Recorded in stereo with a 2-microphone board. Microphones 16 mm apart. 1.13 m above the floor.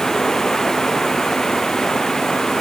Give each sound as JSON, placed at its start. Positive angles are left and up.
{"t": 0.0, "sound": "running water", "side_deg": 35}